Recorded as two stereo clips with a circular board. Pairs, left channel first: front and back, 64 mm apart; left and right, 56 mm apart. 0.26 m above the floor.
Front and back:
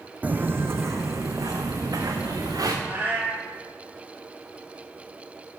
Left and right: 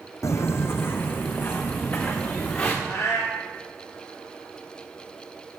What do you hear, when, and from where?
0.2 s footsteps: 115° left, 0.6 m; by 2.7 s 155° left, 1.8 m
2.8 s a cat meowing: 120° left, 2.5 m